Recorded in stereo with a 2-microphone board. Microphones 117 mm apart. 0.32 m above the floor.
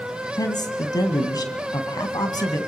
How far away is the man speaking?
About 2.5 m.